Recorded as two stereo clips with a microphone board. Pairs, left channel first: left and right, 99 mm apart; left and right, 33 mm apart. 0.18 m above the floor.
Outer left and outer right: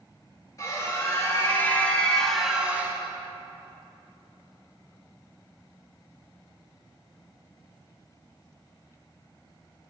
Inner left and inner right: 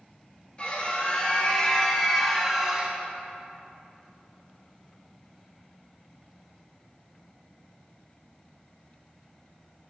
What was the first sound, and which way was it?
A scream, 35° left (ahead or behind).